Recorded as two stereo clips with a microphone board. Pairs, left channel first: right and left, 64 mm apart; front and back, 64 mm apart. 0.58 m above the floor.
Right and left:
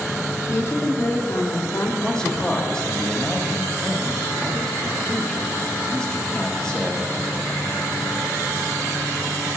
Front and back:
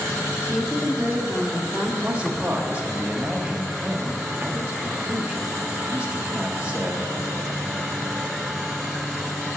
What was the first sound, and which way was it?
A woman speaking, 90° right.